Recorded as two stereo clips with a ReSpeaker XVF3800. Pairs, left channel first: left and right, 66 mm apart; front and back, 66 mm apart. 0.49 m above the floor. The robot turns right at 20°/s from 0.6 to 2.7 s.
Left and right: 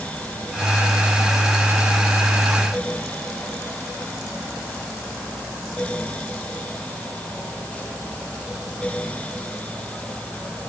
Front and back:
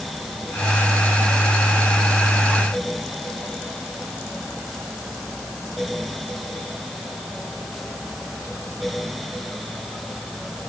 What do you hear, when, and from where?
Only background noise.